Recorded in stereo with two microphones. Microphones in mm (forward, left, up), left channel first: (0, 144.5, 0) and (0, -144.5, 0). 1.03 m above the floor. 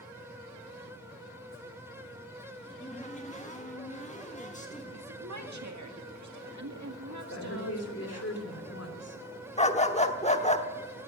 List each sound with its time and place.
2.6 s a cupboard door: 25° left (ahead or behind), 1.9 m
4.9 s a woman speaking: 65° right (ahead or behind), 2 m
7.3 s a woman speaking: 55° left (ahead or behind), 2.5 m
9.6 s a dog barking: 20° left (ahead or behind), 1.0 m